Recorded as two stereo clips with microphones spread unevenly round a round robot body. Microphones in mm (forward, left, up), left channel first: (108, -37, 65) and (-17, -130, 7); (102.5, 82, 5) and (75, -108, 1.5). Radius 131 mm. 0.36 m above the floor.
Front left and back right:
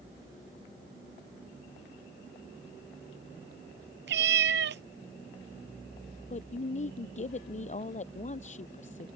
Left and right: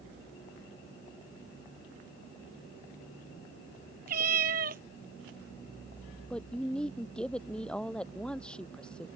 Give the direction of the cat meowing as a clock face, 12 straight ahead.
5 o'clock.